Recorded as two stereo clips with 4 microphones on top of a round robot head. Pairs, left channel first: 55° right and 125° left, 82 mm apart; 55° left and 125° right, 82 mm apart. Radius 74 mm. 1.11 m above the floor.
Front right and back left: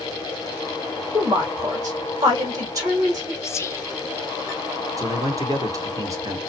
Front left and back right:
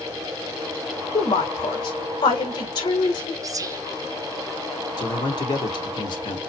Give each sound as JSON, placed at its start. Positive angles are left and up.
{"t": 1.1, "sound": "a woman speaking", "azimuth_deg": 75, "distance_m": 2.5}
{"t": 3.4, "sound": "whispering", "azimuth_deg": -100, "distance_m": 0.6}
{"t": 5.0, "sound": "a man speaking", "azimuth_deg": 75, "distance_m": 1.5}